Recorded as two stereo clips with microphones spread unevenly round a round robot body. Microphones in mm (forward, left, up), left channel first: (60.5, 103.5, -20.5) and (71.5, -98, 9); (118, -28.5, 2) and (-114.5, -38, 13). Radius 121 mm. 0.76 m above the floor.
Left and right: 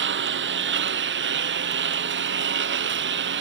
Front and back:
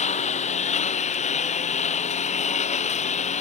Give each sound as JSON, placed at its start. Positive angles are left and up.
{"t": 0.0, "sound": "a lawn mower", "azimuth_deg": -60}